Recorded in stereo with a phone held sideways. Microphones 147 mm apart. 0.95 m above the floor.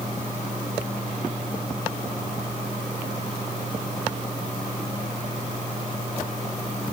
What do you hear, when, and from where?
Only background noise.